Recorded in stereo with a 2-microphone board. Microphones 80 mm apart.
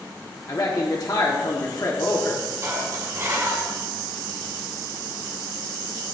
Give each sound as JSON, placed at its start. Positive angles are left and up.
{"t": 0.5, "sound": "a man speaking", "side_deg": 50, "distance_m": 1.3}
{"t": 2.6, "sound": "dishes clattering", "side_deg": -40, "distance_m": 1.8}